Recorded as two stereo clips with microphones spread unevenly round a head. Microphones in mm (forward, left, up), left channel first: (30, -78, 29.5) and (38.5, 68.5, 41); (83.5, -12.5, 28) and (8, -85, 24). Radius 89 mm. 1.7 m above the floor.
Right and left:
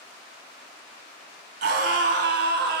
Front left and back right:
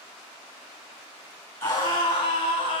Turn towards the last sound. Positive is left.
turn(degrees=90)